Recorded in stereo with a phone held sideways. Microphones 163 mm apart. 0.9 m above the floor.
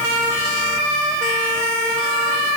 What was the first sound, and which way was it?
Only background noise.